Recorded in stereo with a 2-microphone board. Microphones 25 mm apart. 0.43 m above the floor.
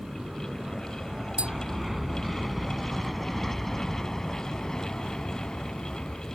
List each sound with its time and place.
0.0 s an aircraft: 25° right (ahead or behind); by 6.3 s 40° left (ahead or behind)
1.4 s tapping: 50° right (ahead or behind)